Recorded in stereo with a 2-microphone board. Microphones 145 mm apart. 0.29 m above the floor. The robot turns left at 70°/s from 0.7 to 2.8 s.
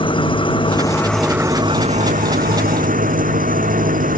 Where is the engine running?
35° left; by 4.2 s 110° right.